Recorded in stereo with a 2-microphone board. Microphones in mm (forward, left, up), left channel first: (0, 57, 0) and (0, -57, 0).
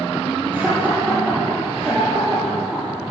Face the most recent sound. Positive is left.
turn(degrees=-5)  # may be behind; listen again after turning